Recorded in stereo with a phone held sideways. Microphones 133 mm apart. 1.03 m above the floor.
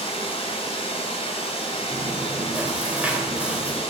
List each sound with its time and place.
0.0 s running water: 50° left (ahead or behind), 3 m
1.9 s chewing: 10° right (ahead or behind), 2.5 m